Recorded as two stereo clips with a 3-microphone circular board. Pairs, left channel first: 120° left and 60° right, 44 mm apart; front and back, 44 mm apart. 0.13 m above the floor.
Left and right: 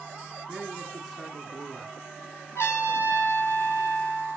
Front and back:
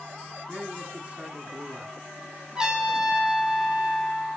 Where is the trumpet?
105° left, 1.9 m.